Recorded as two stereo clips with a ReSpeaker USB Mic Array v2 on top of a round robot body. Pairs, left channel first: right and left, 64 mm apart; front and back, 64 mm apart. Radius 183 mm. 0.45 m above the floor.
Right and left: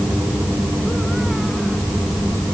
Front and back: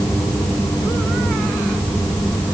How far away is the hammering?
I don't hear hammering.